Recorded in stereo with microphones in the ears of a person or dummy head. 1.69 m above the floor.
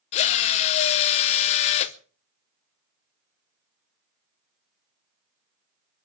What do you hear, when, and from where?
0.1 s a drill: 30° left (ahead or behind), 0.7 m